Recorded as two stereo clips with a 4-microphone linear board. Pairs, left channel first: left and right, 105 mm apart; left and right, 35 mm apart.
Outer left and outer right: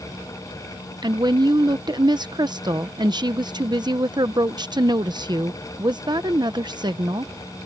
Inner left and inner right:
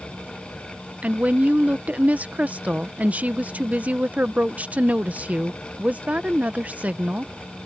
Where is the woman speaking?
40° right (ahead or behind).